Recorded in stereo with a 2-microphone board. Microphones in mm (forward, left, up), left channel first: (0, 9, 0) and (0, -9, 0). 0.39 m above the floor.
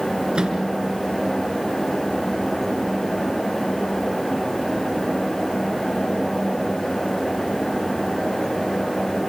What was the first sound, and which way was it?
A microwave, 45° right (ahead or behind).